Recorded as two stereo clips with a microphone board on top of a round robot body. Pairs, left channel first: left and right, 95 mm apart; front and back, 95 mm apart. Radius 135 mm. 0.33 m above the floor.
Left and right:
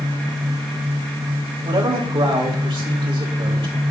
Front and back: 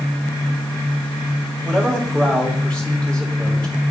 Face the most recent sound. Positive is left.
turn(degrees=-80)